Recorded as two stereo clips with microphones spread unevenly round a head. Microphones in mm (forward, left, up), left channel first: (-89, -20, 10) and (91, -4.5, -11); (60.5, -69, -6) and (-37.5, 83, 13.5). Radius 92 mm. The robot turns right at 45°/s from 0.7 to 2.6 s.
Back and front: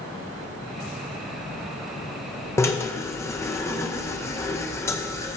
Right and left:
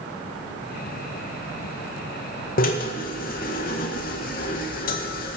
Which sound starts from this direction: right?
A drill, at 2.6 s.